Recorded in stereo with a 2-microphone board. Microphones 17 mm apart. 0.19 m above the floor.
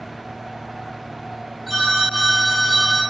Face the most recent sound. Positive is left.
turn(degrees=-5)  # may be behind; listen again after turning